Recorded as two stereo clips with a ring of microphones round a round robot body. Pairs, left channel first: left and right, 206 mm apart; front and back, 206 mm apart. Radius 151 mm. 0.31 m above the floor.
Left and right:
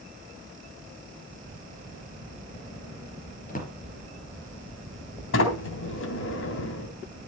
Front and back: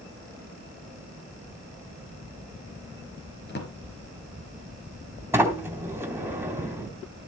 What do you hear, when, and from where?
3.5 s a drawer: 40° left, 3.5 m
5.3 s a sliding door: 100° left, 3 m